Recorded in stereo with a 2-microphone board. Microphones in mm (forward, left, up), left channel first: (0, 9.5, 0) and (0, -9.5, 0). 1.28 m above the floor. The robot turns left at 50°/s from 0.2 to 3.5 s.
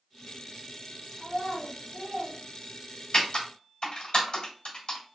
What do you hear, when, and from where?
1.2 s a child speaking: 15° right, 1.8 m; by 2.4 s 75° right, 1.8 m
3.1 s typing on a keyboard: 50° left (ahead or behind), 2.0 m; by 5.0 s 60° left (ahead or behind), 2.0 m